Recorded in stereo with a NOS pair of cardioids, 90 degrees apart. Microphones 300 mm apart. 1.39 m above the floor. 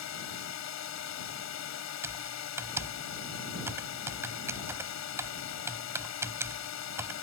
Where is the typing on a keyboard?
10° right.